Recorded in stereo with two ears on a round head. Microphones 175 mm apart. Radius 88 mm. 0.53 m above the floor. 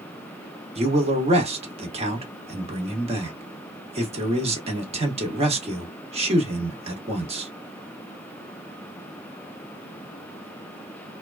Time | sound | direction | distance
0.8 | a man speaking | 35° right (ahead or behind) | 1.2 m